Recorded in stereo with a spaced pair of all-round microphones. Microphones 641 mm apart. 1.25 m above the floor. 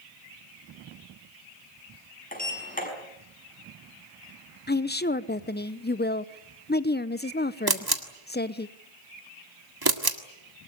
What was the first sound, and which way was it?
A sliding door, 15° left (ahead or behind).